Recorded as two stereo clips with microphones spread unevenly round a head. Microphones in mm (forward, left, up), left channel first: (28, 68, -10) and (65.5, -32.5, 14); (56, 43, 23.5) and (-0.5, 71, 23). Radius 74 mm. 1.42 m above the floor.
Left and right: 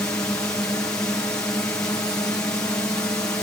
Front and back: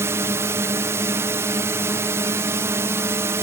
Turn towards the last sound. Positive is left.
turn(degrees=180)